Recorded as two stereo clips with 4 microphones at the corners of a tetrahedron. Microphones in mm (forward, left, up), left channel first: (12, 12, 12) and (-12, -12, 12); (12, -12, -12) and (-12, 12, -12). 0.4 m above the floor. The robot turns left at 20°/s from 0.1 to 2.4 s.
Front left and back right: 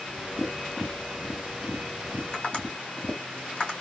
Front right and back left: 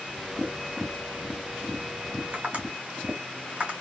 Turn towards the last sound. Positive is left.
turn(degrees=95)